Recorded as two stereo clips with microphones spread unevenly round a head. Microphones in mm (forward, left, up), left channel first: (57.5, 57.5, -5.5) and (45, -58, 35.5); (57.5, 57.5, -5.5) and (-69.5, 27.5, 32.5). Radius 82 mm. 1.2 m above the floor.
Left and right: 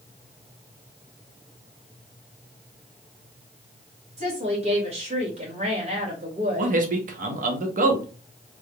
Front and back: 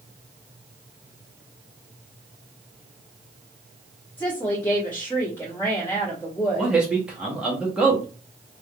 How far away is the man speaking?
About 1.0 m.